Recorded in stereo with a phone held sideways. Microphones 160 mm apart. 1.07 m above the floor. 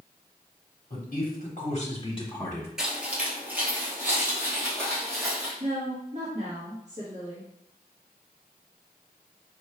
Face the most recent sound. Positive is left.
turn(degrees=-45)  # may be behind; listen again after turning